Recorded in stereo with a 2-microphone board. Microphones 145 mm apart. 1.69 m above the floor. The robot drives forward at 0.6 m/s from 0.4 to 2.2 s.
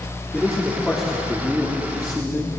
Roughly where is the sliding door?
No sliding door in this recording.